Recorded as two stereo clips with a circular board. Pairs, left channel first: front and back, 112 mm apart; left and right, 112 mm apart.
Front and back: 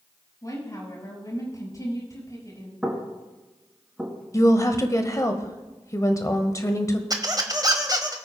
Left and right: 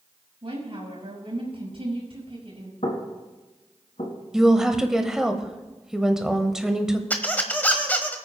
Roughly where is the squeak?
Behind left.